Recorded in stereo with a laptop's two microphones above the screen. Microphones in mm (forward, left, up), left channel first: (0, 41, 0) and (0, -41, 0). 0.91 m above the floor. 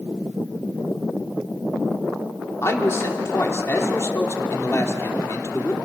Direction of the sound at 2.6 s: 35° left (ahead or behind).